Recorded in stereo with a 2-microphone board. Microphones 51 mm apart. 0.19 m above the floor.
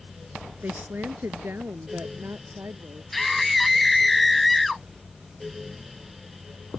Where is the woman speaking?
40° right (ahead or behind); by 3.0 s 55° right (ahead or behind).